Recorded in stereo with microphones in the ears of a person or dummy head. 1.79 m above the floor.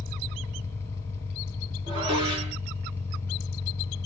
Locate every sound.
0.0 s an engine running: 15° left (ahead or behind), 0.9 m
1.9 s dishes clattering: 20° right (ahead or behind), 1.2 m